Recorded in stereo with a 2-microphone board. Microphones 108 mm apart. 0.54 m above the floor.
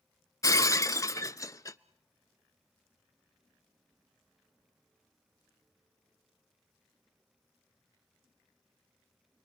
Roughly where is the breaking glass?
Left.